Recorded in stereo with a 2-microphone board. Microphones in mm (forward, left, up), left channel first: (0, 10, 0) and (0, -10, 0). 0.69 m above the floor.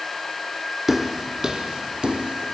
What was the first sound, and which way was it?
Footsteps, 20° right (ahead or behind).